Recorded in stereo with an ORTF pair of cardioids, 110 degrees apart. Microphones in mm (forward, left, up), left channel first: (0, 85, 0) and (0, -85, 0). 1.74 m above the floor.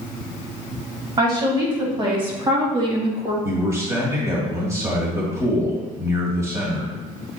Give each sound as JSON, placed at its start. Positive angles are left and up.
{"t": 1.2, "sound": "a woman speaking", "azimuth_deg": -30, "distance_m": 3.0}
{"t": 3.4, "sound": "a man speaking", "azimuth_deg": -20, "distance_m": 2.5}